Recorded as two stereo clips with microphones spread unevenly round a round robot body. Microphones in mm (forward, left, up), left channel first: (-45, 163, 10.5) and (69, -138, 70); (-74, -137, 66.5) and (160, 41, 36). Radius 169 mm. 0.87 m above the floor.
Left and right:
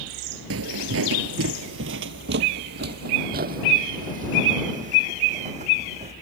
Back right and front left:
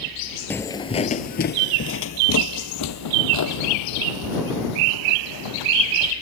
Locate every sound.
0.5 s footsteps: 65° right; by 6.1 s 140° right